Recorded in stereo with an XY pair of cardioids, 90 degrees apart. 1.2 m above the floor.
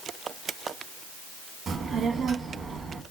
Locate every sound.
1.7 s a child speaking: 60° right, 1.0 m